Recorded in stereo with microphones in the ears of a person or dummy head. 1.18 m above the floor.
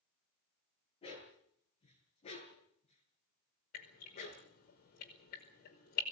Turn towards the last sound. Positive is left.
turn(degrees=50)  # may be behind; listen again after turning